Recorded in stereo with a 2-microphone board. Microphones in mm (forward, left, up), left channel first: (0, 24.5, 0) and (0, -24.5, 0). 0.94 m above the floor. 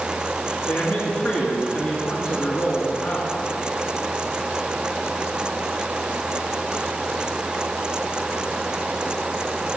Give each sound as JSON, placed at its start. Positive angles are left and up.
{"t": 0.7, "sound": "a man speaking", "side_deg": 60, "distance_m": 2.0}